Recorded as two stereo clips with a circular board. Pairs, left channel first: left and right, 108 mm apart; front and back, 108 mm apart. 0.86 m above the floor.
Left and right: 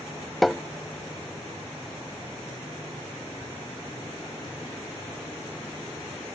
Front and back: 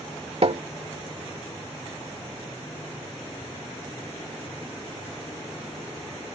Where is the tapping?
Straight behind.